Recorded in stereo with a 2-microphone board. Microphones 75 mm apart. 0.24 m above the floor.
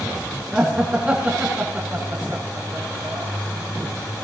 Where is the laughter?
15° right (ahead or behind), 2.5 m; by 3.3 s 60° right (ahead or behind), 2.5 m.